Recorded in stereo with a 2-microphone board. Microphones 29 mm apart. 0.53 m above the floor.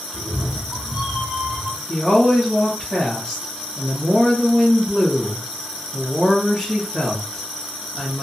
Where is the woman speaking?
5° left (ahead or behind), 1.7 m.